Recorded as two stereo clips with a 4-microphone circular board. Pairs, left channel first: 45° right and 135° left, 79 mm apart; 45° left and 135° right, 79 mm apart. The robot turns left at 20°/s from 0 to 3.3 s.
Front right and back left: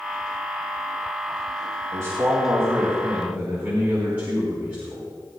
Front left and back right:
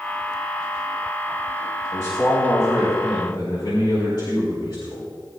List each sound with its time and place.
1.9 s a man speaking: 90° left, 4.5 m; by 5.1 s 65° left, 4.5 m